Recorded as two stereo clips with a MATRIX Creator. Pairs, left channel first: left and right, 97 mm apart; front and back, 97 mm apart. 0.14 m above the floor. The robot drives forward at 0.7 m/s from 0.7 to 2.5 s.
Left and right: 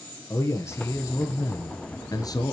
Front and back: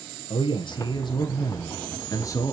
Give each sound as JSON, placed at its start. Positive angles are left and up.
{"t": 0.3, "sound": "a man speaking", "azimuth_deg": 30, "distance_m": 3.0}